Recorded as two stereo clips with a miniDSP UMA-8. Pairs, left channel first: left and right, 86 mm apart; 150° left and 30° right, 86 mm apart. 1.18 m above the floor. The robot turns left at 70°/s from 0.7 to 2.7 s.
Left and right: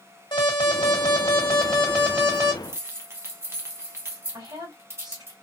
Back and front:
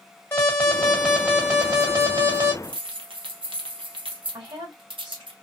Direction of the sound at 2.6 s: 25° right.